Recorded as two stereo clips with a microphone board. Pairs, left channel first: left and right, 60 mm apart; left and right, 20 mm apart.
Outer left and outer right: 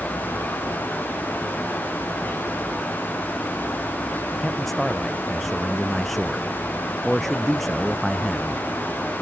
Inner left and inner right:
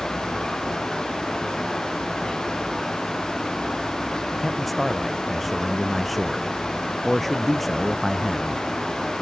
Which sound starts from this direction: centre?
A man speaking, at 4.4 s.